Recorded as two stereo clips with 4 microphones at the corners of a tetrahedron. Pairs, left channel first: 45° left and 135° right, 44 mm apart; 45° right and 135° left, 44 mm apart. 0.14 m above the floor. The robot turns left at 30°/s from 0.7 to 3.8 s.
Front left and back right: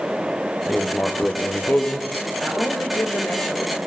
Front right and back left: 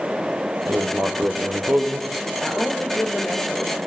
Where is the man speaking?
45° left, 4 m; by 3.8 s straight ahead, 4 m.